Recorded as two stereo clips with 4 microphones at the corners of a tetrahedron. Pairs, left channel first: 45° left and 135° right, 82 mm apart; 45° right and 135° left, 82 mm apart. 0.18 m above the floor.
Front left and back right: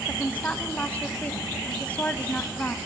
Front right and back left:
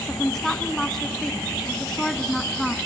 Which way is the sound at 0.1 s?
30° left.